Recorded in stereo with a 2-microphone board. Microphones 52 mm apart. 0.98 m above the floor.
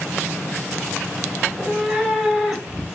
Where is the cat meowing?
Centre (ahead or behind), 0.7 m.